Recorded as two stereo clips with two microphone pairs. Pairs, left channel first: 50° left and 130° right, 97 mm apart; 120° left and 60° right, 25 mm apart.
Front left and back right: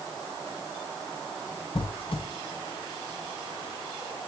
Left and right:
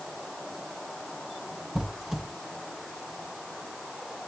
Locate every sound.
1.8 s a squeak: 20° left, 1.9 m